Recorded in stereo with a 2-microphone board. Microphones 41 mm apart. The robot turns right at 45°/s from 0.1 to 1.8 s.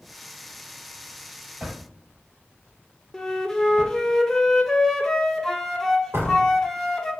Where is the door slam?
70° right (ahead or behind), 2.5 m.